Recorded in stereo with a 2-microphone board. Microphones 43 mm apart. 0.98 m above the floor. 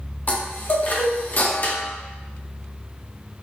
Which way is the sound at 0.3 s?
45° left (ahead or behind).